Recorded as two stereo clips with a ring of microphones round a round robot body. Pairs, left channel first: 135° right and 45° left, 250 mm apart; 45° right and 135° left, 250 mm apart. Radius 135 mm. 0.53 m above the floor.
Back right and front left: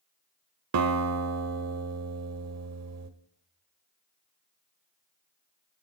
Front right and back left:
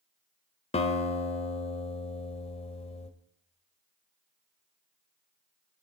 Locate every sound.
0.7 s a guitar: 20° left, 1.2 m